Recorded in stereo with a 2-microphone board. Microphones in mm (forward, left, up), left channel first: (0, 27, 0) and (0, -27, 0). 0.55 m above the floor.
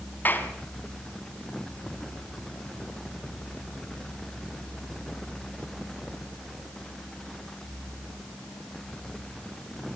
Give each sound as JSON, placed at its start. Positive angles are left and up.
{"t": 0.2, "sound": "a clap", "side_deg": 35, "distance_m": 3.0}